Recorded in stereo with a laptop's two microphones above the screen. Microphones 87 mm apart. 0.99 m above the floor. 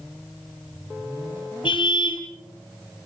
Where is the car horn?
70° left (ahead or behind), 3 m.